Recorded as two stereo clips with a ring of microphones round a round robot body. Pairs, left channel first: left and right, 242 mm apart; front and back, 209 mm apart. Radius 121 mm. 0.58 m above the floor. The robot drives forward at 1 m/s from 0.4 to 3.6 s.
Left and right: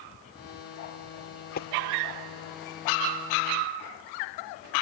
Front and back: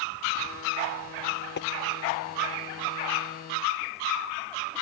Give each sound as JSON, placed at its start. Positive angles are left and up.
{"t": 1.6, "sound": "tapping", "azimuth_deg": 35}